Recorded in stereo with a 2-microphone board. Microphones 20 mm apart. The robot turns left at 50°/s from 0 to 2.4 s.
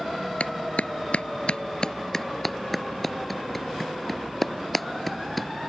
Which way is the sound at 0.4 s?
65° left (ahead or behind).